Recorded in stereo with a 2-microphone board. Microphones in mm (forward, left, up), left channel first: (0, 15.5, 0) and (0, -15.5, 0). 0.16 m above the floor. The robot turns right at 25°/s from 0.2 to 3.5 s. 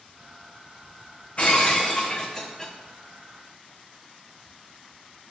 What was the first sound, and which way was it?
Breaking glass, 135° left.